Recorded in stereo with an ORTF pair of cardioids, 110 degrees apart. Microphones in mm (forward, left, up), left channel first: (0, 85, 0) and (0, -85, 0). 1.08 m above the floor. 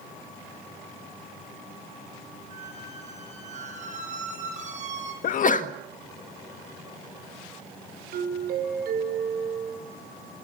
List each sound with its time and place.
2.5 s a squeak: 45° right, 8.5 m
5.2 s a sneeze: 50° left, 1.5 m
8.1 s a doorbell: 65° right, 5.5 m